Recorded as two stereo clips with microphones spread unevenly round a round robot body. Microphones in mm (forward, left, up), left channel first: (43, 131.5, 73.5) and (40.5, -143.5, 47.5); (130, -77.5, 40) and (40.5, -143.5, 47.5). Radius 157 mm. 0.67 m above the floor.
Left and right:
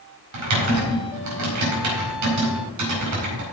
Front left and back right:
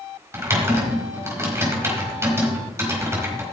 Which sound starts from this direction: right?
Typing on a keyboard, at 0.3 s.